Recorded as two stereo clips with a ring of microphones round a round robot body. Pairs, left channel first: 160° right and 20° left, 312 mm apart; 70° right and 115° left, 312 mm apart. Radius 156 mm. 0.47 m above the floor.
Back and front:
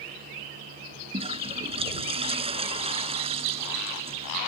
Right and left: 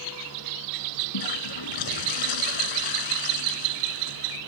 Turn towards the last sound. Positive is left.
turn(degrees=-50)